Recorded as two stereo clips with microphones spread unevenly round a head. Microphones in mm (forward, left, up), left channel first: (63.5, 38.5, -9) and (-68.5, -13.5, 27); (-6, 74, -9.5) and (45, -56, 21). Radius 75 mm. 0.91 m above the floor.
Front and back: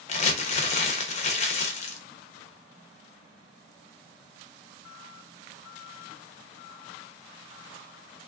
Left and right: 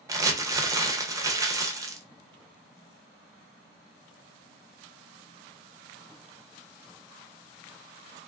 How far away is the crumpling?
About 0.6 m.